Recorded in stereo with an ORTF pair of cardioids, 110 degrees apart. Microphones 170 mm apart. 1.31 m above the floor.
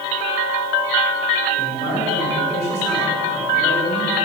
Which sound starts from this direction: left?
A man speaking, at 1.6 s.